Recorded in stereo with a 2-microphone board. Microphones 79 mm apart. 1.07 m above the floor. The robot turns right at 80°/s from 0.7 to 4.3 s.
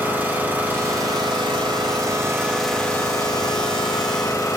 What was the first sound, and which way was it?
An engine running, 155° right.